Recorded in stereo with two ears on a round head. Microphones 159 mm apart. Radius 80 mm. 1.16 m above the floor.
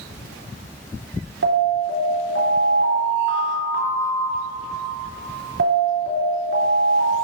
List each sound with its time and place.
1.4 s an alarm: 70° right (ahead or behind), 3.5 m